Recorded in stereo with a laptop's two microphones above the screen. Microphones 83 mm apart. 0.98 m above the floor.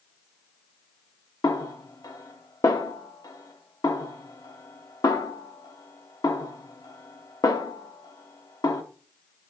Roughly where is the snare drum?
Left.